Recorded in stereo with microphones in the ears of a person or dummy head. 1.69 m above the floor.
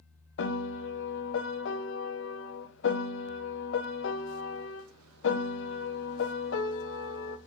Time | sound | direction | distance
0.4 | a piano | 75° left (ahead or behind) | 1.4 m